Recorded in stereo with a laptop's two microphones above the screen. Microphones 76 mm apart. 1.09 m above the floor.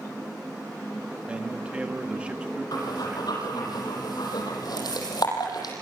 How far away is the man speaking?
About 1.3 m.